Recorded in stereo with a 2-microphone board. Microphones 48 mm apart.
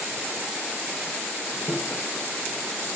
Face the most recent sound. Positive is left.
turn(degrees=70)  # may be behind; listen again after turning